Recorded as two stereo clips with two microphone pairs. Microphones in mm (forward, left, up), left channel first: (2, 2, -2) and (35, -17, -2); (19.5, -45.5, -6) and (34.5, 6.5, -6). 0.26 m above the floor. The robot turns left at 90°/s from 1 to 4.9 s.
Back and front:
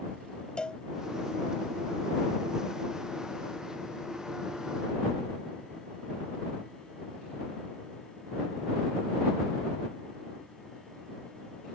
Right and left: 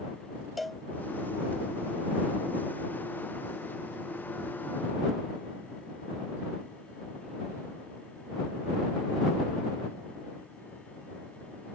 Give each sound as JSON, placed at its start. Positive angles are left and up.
{"t": 0.6, "sound": "a cowbell", "azimuth_deg": 165}